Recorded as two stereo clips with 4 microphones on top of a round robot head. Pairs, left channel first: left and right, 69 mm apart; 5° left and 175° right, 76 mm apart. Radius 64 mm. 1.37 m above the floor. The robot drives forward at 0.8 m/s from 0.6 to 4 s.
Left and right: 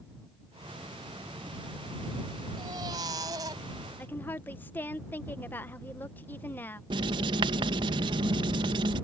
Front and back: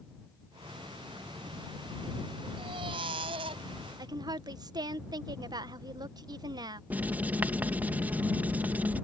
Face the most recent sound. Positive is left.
turn(degrees=-100)